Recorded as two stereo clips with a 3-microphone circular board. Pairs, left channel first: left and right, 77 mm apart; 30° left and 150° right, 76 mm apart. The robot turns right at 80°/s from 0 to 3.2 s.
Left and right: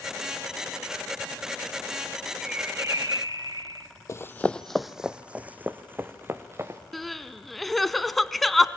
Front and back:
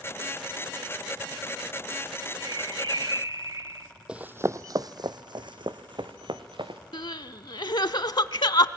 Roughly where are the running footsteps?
Behind left.